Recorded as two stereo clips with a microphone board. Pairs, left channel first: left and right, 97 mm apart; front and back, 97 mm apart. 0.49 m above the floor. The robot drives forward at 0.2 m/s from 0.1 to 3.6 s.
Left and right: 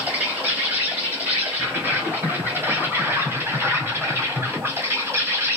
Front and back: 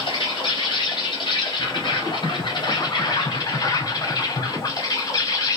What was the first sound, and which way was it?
An insect, 15° right.